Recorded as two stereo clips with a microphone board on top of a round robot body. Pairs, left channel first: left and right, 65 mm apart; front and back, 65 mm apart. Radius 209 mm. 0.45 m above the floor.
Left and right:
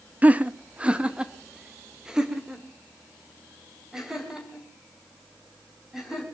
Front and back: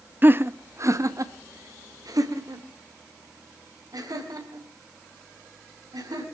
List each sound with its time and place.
0.2 s laughter: 140° right, 0.9 m; by 6.2 s 175° right, 4.5 m